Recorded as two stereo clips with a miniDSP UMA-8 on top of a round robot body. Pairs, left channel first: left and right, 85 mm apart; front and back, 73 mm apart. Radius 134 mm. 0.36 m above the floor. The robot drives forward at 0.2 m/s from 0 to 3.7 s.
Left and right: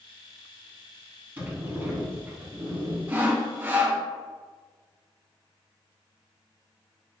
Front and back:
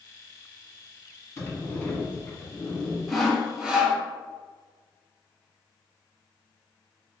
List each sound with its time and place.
1.4 s a sliding door: 35° right, 1.7 m; by 3.0 s 50° right, 1.6 m
3.1 s sawing: 95° right, 1.0 m; by 4.0 s 110° right, 1.0 m